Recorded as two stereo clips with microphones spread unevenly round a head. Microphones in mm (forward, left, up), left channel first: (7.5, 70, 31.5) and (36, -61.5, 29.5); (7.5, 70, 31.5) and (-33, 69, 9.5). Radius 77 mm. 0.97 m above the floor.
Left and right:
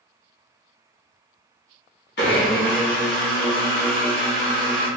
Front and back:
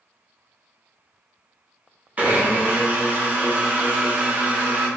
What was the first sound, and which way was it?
A blender, 120° left.